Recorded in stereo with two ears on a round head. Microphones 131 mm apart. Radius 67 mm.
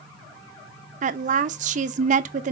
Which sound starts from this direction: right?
A woman speaking, at 1.0 s.